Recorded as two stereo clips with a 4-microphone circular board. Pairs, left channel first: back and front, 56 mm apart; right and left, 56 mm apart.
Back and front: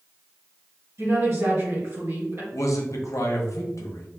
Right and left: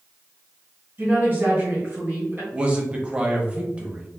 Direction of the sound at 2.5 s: 155° left.